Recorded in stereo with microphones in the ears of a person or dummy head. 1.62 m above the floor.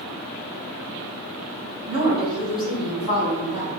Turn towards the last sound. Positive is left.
turn(degrees=-25)  # may be behind; listen again after turning